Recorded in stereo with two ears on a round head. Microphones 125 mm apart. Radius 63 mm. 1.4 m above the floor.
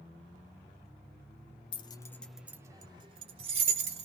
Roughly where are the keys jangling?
Left.